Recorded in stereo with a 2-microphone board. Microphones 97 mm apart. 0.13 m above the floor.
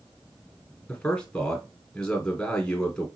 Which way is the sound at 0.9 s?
10° left (ahead or behind).